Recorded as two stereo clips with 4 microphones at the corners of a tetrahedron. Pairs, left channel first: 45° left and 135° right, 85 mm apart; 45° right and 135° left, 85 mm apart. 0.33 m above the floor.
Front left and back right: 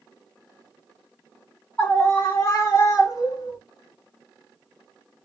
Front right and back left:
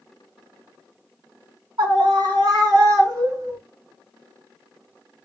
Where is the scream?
115° left, 2 m; by 3.6 s 85° left, 2 m.